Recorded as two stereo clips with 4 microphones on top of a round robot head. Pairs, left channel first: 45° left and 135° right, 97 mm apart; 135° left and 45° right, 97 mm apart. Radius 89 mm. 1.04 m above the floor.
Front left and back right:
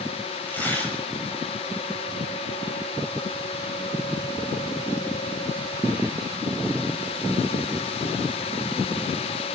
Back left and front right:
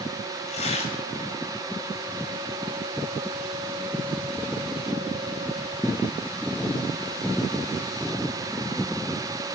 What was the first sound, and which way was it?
Tearing paper, 120° left.